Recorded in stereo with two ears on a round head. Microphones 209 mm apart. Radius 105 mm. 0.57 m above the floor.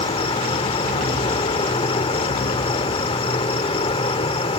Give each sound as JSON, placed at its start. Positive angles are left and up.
{"t": 0.0, "sound": "an insect", "side_deg": 25}